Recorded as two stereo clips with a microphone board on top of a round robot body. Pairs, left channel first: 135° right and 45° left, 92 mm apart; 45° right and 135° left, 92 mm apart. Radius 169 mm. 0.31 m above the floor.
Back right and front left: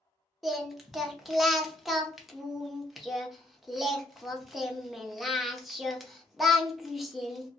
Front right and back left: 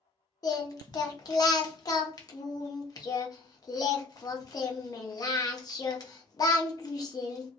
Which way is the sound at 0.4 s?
45° right.